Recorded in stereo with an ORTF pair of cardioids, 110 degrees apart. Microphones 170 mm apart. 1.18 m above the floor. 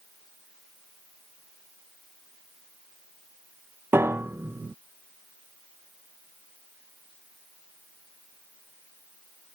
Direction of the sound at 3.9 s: 15° right.